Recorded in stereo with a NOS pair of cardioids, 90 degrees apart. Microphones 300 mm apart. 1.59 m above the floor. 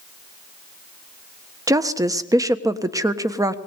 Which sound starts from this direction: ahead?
A woman speaking, at 1.7 s.